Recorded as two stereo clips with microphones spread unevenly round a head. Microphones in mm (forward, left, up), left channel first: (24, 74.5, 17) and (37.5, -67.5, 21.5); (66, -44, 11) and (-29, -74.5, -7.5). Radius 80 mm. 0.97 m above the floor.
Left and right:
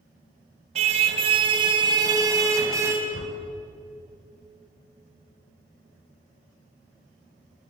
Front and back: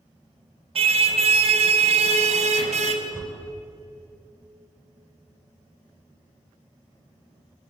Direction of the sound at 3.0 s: 120° left.